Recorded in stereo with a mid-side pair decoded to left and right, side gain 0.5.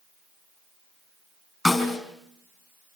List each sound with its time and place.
1.6 s a snare drum: 20° left, 5 m